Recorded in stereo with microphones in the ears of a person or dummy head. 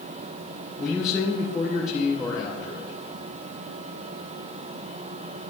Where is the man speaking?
20° left (ahead or behind), 1.7 m.